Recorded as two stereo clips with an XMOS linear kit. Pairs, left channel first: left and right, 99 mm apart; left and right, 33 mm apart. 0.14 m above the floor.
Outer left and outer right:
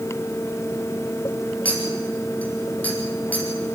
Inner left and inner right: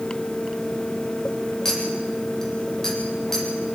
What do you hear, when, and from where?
1.6 s a clink: 15° left (ahead or behind), 3.5 m